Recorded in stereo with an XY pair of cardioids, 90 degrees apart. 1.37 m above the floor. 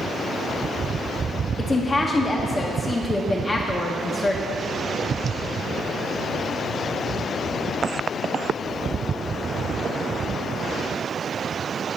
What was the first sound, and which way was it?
A woman speaking, 25° left.